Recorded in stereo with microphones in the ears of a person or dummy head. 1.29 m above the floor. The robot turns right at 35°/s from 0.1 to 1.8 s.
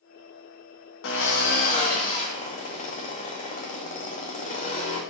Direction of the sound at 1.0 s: 65° left (ahead or behind).